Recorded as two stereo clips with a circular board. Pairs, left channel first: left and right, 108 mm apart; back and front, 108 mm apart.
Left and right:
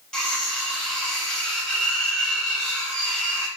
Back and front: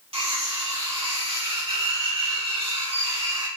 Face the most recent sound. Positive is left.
turn(degrees=10)